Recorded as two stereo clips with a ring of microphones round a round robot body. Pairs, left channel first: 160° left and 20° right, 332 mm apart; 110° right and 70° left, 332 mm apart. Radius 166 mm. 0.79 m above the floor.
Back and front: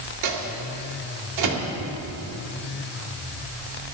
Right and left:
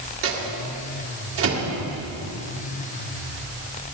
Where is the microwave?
15° left, 2 m.